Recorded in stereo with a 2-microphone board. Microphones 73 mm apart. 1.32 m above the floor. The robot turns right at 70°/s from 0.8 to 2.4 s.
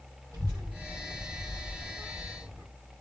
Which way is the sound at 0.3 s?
45° right (ahead or behind).